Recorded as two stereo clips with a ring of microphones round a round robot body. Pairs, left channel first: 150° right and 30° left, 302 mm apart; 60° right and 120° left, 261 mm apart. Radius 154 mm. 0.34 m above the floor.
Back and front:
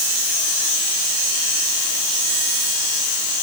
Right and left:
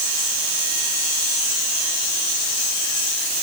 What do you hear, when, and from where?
Only background noise.